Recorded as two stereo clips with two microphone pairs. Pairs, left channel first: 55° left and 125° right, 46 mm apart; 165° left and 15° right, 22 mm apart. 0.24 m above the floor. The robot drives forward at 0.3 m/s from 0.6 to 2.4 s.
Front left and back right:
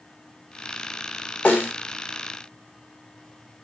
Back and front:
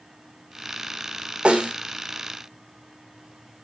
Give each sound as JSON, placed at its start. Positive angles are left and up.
{"t": 1.4, "sound": "a snare drum", "azimuth_deg": 5, "distance_m": 3.5}